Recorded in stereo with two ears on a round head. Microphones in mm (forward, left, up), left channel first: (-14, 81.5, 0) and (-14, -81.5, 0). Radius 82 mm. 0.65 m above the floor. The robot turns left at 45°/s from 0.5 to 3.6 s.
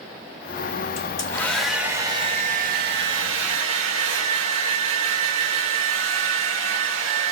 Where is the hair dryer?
30° left, 1.0 m; by 7.3 s 90° right, 1.0 m.